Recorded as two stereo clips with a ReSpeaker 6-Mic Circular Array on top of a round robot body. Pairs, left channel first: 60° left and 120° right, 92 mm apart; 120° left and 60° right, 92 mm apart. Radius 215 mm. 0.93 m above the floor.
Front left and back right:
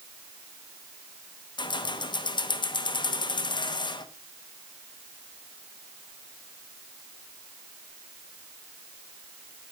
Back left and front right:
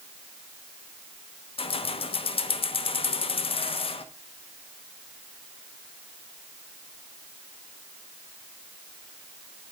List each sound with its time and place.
1.6 s keys jangling: 100° left, 1.1 m